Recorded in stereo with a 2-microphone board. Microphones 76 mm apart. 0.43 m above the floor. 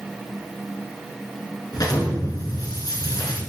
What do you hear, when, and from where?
1.7 s an explosion: 55° left (ahead or behind), 3 m